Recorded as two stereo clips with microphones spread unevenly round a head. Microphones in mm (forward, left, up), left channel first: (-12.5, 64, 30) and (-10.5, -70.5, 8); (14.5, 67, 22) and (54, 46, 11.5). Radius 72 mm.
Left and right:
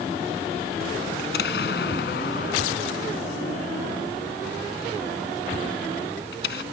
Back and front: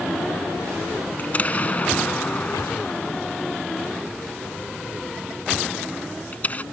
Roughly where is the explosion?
Left.